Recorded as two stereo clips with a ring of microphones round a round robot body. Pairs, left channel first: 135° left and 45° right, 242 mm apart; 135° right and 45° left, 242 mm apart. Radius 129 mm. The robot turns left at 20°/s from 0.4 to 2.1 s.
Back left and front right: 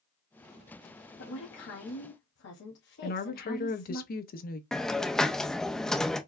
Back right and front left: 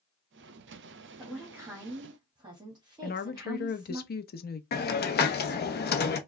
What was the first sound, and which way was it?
A woman speaking, 130° left.